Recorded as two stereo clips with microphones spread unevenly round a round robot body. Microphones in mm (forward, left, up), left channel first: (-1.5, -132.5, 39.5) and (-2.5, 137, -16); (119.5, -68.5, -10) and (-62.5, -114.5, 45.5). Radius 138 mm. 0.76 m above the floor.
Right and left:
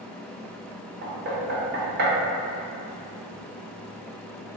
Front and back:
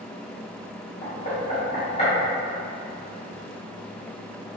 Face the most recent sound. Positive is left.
turn(degrees=55)